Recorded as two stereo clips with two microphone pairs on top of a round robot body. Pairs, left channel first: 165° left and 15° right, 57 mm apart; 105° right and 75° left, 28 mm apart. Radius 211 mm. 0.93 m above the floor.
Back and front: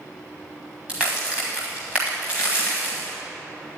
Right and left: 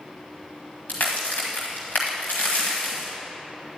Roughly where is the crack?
Right.